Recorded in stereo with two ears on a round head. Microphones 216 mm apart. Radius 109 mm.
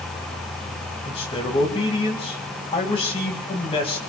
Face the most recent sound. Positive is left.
turn(degrees=25)  # may be behind; listen again after turning